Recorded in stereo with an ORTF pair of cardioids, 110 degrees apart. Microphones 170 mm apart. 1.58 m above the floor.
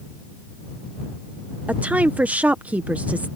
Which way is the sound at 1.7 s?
10° right.